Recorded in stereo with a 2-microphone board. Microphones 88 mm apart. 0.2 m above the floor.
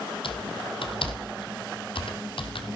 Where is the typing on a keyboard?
75° left (ahead or behind), 2.5 m.